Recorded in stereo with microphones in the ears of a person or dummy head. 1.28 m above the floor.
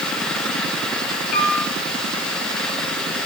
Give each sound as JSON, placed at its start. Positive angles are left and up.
{"t": 1.3, "sound": "a piano", "side_deg": 50, "distance_m": 6.0}